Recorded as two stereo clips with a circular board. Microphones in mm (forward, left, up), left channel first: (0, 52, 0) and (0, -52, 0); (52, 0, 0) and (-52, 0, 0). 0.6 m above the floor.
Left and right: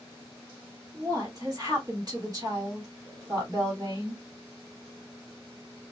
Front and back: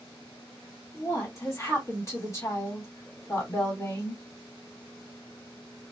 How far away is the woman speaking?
About 1.8 m.